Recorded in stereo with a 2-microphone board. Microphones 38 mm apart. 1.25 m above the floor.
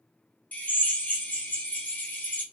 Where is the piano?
No piano in this recording.